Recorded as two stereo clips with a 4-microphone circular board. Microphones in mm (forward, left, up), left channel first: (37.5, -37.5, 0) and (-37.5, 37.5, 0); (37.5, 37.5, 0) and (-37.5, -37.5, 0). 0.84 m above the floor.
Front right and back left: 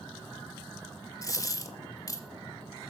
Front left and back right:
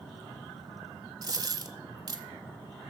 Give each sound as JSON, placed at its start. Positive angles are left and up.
{"t": 1.2, "sound": "a dropped coin", "azimuth_deg": -90, "distance_m": 1.0}